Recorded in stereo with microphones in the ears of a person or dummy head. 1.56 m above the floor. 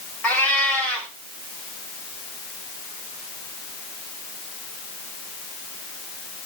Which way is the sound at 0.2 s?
5° left (ahead or behind).